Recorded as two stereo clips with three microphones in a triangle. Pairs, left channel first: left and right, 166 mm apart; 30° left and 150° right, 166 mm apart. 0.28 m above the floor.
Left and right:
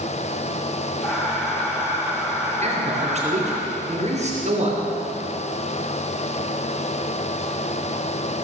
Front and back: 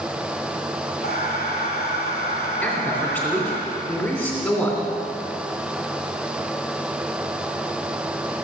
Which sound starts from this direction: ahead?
Breathing, at 1.0 s.